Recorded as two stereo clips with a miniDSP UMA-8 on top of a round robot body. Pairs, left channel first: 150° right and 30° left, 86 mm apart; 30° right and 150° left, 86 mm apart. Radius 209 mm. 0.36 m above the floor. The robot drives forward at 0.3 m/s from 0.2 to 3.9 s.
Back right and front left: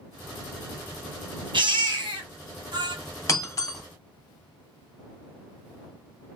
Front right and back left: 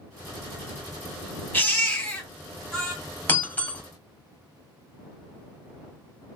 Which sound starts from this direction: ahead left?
A baby crying, at 1.5 s.